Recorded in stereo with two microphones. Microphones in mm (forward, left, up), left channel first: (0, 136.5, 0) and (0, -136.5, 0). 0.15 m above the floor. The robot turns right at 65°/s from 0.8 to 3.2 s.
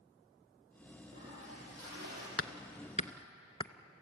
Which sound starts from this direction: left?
Hammering, at 2.4 s.